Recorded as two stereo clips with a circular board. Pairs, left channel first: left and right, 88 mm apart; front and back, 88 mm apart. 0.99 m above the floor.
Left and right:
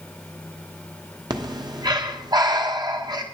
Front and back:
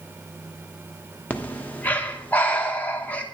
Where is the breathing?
70° right, 1.0 m.